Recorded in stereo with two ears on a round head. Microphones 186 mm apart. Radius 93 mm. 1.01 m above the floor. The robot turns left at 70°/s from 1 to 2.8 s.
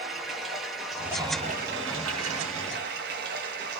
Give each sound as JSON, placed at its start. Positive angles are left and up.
{"t": 0.0, "sound": "running water", "azimuth_deg": 0, "distance_m": 0.8}